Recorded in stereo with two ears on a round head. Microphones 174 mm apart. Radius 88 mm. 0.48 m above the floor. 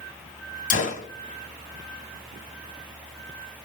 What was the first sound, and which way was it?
A gunshot, 45° left (ahead or behind).